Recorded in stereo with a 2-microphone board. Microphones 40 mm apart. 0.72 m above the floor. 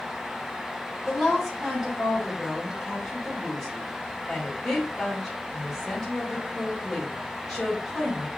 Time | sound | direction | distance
1.1 | a woman speaking | 10° left (ahead or behind) | 3 m